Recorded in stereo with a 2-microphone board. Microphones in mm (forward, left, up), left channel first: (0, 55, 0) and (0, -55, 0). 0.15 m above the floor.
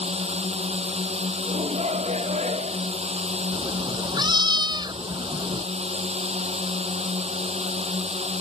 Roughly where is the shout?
Right.